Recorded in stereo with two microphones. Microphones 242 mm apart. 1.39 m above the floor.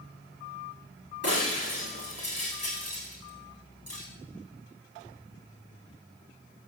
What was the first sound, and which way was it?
Breaking glass, 70° left (ahead or behind).